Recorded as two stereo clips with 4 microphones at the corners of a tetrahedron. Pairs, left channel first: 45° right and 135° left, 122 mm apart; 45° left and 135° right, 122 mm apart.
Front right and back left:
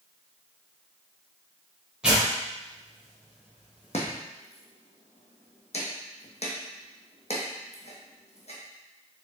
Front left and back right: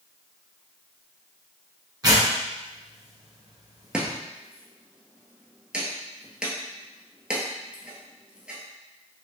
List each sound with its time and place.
2.0 s tearing paper: 145° right, 1.6 m
3.9 s chopping: 55° right, 1.1 m